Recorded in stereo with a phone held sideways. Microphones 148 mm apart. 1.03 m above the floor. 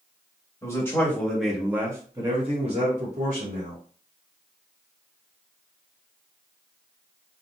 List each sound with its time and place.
0.6 s a man speaking: 20° left (ahead or behind), 1.3 m; by 3.8 s 65° right (ahead or behind), 1.4 m